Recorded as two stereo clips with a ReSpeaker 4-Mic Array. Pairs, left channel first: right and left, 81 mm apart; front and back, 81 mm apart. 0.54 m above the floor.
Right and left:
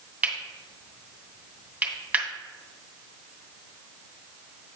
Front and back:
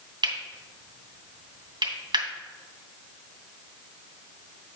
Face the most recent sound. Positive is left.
turn(degrees=155)